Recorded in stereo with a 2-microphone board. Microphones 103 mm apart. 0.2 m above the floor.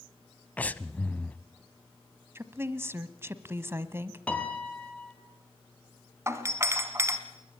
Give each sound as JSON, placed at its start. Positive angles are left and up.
{"t": 0.6, "sound": "breathing", "side_deg": 15, "distance_m": 0.7}
{"t": 2.4, "sound": "a woman speaking", "side_deg": -25, "distance_m": 1.1}
{"t": 4.3, "sound": "a piano", "side_deg": 10, "distance_m": 2.5}
{"t": 6.3, "sound": "a doorbell", "side_deg": -25, "distance_m": 1.8}